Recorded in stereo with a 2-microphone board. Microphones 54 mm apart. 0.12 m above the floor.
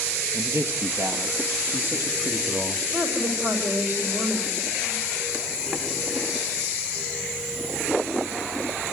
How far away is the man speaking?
About 2.5 m.